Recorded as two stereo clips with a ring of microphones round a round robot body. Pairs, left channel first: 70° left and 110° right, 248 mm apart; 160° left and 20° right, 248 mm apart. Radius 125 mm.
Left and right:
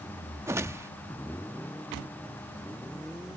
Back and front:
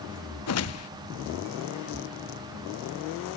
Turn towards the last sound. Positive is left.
turn(degrees=170)